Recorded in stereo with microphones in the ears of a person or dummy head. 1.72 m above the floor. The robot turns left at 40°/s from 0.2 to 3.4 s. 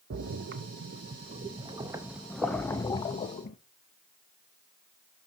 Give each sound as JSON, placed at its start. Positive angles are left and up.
{"t": 0.1, "sound": "a splash", "side_deg": -60, "distance_m": 0.7}